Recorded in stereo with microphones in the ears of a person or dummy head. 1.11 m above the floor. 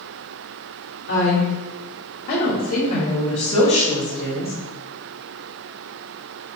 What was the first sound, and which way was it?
A woman speaking, 60° left (ahead or behind).